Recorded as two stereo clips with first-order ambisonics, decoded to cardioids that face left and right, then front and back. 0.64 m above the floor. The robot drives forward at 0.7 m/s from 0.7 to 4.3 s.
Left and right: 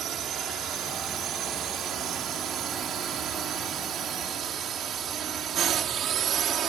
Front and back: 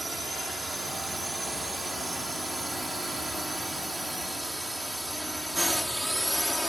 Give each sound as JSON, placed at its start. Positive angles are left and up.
{"t": 0.0, "sound": "a drone", "azimuth_deg": -110}